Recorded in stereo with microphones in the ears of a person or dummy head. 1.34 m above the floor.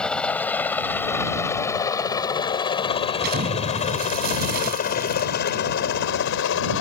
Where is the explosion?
55° right (ahead or behind).